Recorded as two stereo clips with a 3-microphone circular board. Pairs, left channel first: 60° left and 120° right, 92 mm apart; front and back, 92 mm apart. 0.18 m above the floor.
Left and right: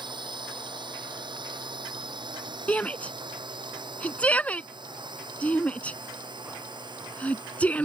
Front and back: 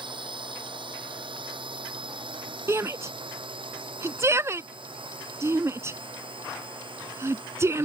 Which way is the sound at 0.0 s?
155° right.